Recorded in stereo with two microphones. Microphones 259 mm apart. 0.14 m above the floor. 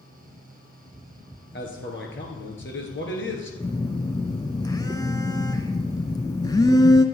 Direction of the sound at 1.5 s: 50° left (ahead or behind).